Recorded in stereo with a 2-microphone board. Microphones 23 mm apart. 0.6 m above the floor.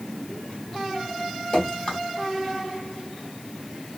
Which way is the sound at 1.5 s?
35° left (ahead or behind).